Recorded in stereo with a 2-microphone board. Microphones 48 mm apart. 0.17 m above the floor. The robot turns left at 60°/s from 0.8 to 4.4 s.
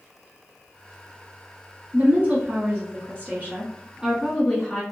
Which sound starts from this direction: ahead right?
A woman speaking, at 1.9 s.